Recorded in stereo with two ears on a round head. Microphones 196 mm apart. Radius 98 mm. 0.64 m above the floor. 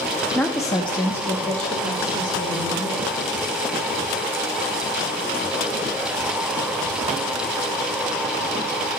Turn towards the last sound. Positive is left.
turn(degrees=25)  # may be behind; listen again after turning